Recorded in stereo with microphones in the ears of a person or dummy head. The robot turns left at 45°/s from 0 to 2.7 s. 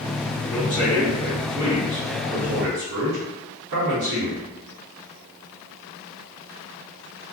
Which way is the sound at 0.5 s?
25° left.